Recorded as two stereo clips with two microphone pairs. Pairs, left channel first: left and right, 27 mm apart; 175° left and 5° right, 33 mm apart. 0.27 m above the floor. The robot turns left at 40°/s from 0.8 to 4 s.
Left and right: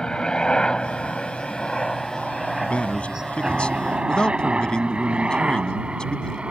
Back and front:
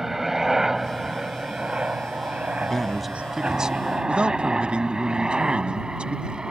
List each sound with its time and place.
0.0 s a helicopter: 65° left; by 6.5 s 65° right
2.6 s a man speaking: 100° left; by 6.4 s 45° left